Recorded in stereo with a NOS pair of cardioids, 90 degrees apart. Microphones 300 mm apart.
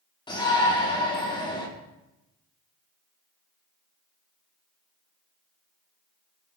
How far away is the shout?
About 5 m.